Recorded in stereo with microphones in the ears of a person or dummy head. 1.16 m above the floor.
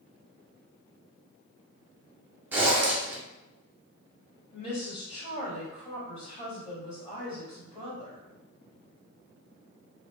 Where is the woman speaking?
40° left (ahead or behind), 1.8 m.